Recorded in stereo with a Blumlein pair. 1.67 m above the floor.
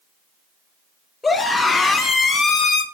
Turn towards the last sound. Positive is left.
turn(degrees=40)